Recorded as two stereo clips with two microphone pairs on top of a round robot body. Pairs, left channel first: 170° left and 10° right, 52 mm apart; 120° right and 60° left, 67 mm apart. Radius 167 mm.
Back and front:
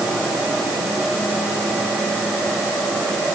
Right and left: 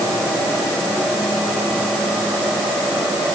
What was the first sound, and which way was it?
Only background noise.